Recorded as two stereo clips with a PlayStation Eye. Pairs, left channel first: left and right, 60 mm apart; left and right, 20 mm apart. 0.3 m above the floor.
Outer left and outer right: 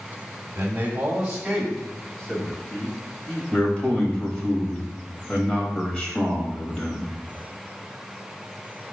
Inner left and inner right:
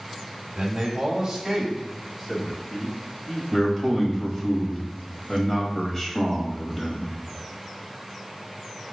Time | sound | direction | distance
0.6 | a man speaking | 30° right (ahead or behind) | 1.3 m
3.5 | a man speaking | 20° left (ahead or behind) | 1.2 m